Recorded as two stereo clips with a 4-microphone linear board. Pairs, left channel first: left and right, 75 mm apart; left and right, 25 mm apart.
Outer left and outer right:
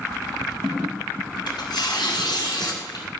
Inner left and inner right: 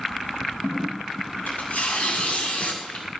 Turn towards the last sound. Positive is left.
turn(degrees=75)  # may be behind; listen again after turning